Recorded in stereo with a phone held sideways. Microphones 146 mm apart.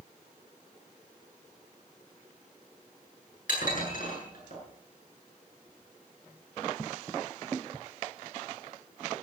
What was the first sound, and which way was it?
Dishes clattering, 70° left (ahead or behind).